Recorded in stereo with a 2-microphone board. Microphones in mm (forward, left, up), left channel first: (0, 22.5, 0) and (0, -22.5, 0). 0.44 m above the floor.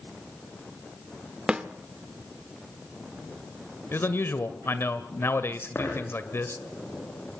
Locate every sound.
1.5 s a snare drum: 20° right (ahead or behind), 1.1 m
3.9 s a man speaking: 55° left (ahead or behind), 1.8 m
5.8 s a dropped coin: 65° left (ahead or behind), 8 m